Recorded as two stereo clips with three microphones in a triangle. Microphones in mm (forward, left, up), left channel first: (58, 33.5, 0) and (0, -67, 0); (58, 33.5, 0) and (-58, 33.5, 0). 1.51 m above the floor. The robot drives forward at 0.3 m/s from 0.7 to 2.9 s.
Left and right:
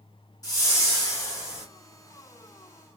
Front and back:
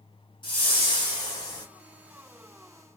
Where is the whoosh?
15° left, 1.3 m; by 1.7 s 20° left, 1.1 m.